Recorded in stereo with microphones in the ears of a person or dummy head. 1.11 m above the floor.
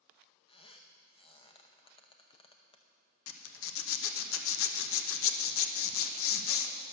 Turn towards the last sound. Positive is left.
turn(degrees=65)  # may be behind; listen again after turning